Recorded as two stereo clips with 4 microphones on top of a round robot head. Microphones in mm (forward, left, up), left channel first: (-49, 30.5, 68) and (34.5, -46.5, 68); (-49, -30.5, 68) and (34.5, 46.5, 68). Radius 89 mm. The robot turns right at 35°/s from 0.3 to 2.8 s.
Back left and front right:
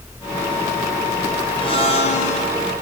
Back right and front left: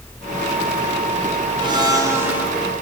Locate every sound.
1.6 s a blender: 90° left, 4.5 m; by 2.5 s 120° left, 4.5 m